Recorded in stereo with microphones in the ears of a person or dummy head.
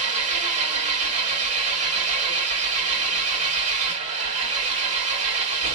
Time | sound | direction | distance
0.0 | an engine running | 40° right (ahead or behind) | 1.0 m